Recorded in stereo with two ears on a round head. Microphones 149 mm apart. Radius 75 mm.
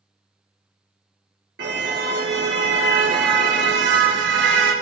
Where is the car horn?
80° right, 6 m.